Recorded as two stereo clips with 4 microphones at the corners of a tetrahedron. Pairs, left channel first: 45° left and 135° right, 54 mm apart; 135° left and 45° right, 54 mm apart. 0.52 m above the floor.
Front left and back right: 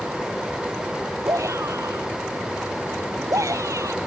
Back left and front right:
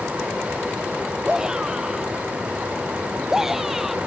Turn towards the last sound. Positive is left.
turn(degrees=-130)